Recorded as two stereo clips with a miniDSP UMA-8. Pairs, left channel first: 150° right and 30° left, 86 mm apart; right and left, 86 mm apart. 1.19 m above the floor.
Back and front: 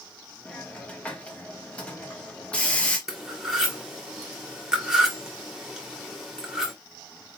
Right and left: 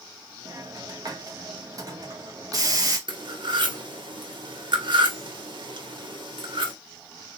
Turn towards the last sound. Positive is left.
turn(degrees=115)